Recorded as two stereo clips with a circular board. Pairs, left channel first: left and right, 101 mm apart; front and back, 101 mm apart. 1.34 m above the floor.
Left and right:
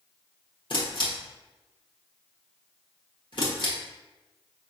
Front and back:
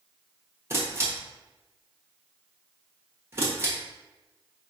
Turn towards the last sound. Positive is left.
turn(degrees=120)